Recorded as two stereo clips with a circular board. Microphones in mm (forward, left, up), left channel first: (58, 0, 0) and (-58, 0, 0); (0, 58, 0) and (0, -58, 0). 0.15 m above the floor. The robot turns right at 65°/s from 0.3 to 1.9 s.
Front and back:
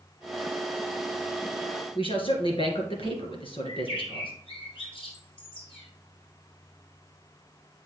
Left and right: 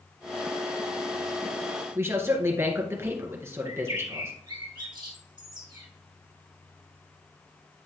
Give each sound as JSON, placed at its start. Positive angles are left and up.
{"t": 1.9, "sound": "a man speaking", "azimuth_deg": -25, "distance_m": 2.0}
{"t": 3.6, "sound": "a bird", "azimuth_deg": -40, "distance_m": 2.5}